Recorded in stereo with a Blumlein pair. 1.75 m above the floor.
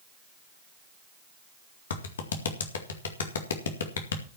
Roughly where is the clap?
Ahead left.